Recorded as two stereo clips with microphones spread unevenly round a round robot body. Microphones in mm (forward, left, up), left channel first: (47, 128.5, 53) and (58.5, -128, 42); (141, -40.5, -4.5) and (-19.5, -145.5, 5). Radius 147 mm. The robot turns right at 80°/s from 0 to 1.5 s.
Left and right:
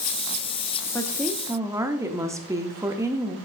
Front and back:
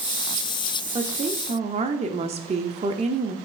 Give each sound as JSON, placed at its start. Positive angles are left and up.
{"t": 0.9, "sound": "a woman speaking", "azimuth_deg": 165, "distance_m": 0.7}